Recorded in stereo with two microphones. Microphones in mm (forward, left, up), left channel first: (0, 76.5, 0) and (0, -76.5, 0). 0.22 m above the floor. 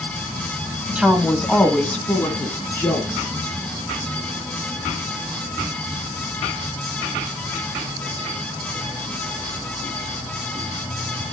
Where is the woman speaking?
5° right (ahead or behind), 0.9 m; by 3.4 s 15° left (ahead or behind), 3 m.